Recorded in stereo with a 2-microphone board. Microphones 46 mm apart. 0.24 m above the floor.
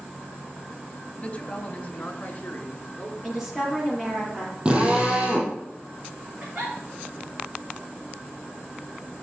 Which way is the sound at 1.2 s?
30° left (ahead or behind).